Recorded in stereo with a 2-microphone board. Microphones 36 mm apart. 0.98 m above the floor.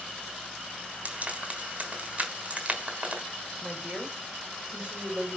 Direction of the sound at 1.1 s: 35° right (ahead or behind).